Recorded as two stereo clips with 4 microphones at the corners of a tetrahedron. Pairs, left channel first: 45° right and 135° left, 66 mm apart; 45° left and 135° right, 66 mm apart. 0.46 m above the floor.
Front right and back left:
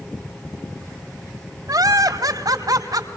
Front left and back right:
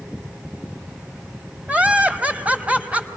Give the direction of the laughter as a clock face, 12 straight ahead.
7 o'clock.